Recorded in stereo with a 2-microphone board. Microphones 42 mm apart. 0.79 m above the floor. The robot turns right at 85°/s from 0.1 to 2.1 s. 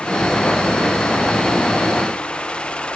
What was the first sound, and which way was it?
Only background noise.